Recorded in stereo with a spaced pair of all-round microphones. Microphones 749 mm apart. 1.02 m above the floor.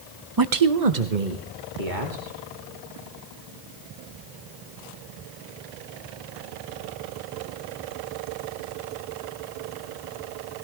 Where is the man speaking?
25° right (ahead or behind), 0.6 m; by 2.4 s 80° right, 3 m.